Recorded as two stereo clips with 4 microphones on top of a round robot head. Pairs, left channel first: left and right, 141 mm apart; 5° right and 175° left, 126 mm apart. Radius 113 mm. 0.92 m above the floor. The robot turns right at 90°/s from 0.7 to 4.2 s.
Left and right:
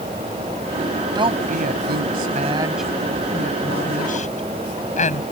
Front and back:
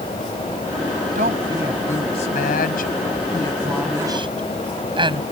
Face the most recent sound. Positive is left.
turn(degrees=125)